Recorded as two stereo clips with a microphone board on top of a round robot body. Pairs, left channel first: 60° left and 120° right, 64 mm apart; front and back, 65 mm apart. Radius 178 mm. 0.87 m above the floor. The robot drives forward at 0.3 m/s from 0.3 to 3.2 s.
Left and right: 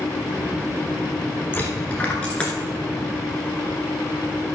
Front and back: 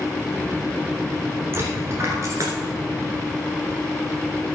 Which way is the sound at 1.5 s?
125° left.